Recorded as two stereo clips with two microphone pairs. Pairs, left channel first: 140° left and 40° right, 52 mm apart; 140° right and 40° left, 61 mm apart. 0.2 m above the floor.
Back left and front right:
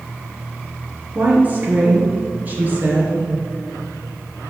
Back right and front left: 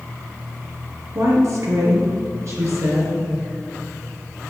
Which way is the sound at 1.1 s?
10° left.